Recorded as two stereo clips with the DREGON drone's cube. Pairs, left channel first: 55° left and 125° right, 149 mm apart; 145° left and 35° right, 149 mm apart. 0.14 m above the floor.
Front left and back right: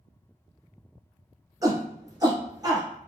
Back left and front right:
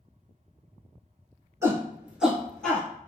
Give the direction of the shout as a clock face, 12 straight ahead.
3 o'clock.